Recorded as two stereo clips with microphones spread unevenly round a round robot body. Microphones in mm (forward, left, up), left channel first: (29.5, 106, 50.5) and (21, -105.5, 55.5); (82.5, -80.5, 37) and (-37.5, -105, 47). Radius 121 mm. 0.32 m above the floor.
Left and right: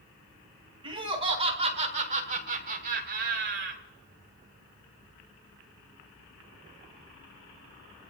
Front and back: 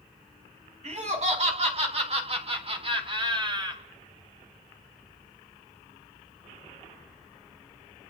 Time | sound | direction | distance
0.8 | laughter | 160° right | 3 m